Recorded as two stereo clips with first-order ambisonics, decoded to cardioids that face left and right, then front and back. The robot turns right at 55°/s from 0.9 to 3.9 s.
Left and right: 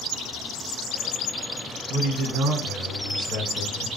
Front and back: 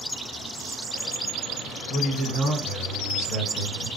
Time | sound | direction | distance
1.9 | a man speaking | 130° right | 1.9 m